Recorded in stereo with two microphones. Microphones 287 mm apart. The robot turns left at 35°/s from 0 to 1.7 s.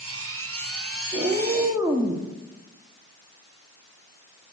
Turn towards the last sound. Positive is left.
turn(degrees=-5)  # may be behind; listen again after turning